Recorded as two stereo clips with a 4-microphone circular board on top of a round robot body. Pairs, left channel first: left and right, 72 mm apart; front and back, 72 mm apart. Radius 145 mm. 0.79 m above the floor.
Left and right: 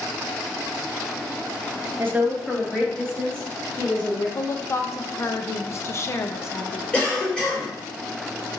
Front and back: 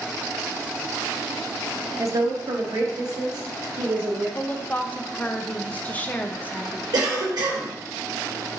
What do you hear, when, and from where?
2.0 s a woman speaking: 140° right, 0.8 m; by 4.2 s 150° left, 3 m
4.3 s a woman speaking: 60° left, 0.7 m
6.9 s a cough: 165° left, 2.5 m